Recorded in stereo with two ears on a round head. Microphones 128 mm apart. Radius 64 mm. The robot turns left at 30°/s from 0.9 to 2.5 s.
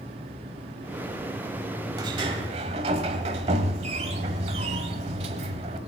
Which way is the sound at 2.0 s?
30° right (ahead or behind).